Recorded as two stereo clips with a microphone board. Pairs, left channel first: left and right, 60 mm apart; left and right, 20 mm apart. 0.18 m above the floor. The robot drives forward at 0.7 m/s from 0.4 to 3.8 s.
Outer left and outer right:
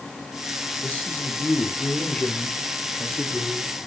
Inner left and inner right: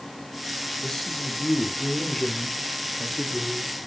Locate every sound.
0.8 s a man speaking: 20° left (ahead or behind), 3.5 m; by 3.7 s 15° left (ahead or behind), 5.5 m